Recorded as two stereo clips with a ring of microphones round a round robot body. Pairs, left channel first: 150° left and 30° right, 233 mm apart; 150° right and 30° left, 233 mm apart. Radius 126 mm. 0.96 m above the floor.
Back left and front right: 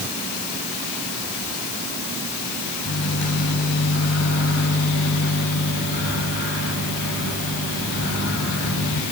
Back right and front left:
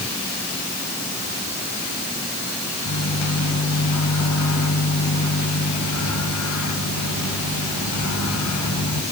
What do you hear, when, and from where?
2.9 s a microwave: 165° right, 6 m